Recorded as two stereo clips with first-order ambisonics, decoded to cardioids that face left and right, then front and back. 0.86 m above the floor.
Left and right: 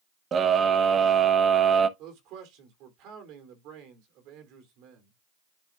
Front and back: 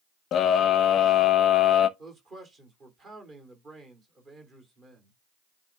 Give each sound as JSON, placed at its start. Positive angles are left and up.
{"t": 0.3, "sound": "a scream", "azimuth_deg": -35, "distance_m": 0.7}
{"t": 2.0, "sound": "a man speaking", "azimuth_deg": -120, "distance_m": 2.5}